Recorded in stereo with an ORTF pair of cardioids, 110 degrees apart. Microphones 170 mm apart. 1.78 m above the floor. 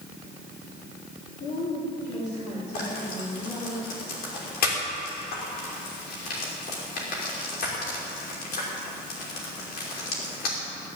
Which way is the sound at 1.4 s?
45° left.